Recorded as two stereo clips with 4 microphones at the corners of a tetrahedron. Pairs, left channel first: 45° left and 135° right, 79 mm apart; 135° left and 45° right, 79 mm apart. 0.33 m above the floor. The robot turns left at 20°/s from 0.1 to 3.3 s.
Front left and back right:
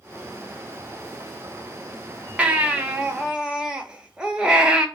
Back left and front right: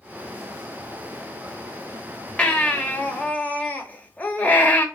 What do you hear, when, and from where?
2.4 s a baby crying: 175° right, 0.8 m; by 4.9 s 165° left, 0.8 m